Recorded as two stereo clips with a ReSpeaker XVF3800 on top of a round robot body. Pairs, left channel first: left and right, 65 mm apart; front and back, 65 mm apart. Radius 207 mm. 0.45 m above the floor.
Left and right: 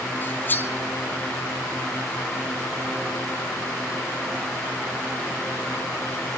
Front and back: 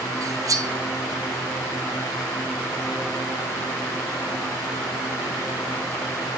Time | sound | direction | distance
0.2 | cutlery clinking | 150° left | 1.5 m